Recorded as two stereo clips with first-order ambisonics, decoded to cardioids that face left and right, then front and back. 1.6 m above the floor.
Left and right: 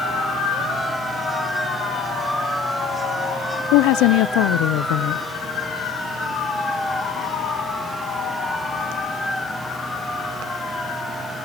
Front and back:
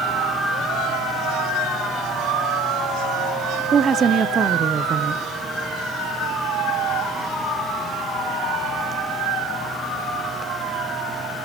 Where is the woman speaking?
115° left, 0.9 m.